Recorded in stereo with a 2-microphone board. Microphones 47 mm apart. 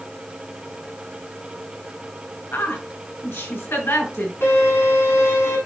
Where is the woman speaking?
60° left (ahead or behind), 6 m.